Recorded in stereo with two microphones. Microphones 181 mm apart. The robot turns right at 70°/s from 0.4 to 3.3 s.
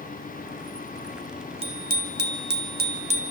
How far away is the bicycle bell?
About 2.5 m.